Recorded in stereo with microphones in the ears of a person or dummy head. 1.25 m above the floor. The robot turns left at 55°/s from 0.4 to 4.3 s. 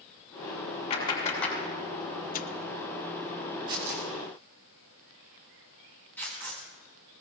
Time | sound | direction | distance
0.9 | a clap | 40° left (ahead or behind) | 6.5 m
2.3 | tearing paper | 50° left (ahead or behind) | 0.9 m
3.7 | tearing paper | 25° right (ahead or behind) | 5 m